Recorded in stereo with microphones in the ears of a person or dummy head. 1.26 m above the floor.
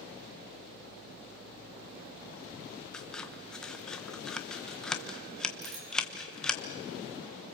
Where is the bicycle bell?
85° right, 7 m.